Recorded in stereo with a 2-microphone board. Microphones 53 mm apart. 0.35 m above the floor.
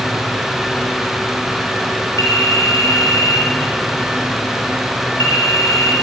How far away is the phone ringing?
About 4.5 m.